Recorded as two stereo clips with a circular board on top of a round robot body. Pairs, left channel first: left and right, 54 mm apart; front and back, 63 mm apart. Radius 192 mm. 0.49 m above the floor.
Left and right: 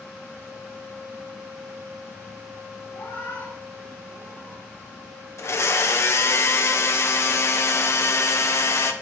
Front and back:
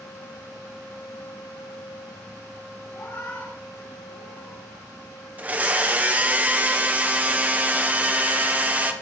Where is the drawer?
No drawer in this recording.